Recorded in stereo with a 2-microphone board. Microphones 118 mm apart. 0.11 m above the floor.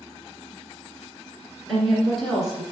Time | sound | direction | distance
1.7 | a woman speaking | centre (ahead or behind) | 1.7 m